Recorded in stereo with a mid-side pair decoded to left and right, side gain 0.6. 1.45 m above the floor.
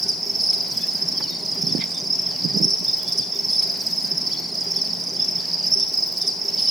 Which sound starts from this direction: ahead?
An insect, at 0.0 s.